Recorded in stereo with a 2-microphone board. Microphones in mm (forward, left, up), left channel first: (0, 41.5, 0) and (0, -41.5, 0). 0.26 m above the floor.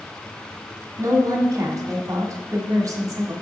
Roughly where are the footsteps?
I don't hear footsteps.